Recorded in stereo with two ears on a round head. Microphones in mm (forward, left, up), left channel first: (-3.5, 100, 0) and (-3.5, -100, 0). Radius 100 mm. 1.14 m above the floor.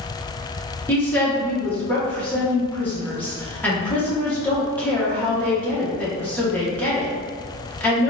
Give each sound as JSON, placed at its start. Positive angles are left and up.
{"t": 0.9, "sound": "a woman speaking", "side_deg": 5, "distance_m": 1.0}